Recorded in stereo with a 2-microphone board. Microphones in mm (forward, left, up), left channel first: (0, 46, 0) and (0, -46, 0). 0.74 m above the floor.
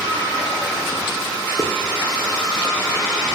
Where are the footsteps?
40° right (ahead or behind), 2.5 m.